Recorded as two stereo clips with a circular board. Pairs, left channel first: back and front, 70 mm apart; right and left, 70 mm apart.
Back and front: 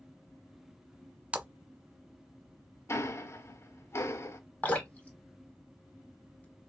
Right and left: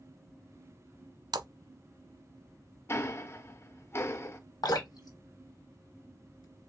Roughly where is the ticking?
Behind right.